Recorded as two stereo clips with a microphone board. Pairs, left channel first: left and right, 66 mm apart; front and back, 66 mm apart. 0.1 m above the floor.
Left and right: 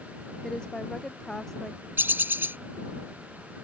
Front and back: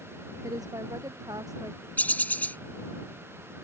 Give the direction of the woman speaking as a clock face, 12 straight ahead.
6 o'clock.